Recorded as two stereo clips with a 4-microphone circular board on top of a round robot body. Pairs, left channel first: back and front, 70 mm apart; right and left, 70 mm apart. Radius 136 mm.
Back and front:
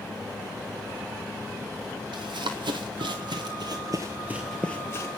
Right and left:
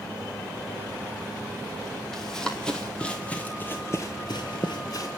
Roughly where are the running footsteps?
Ahead.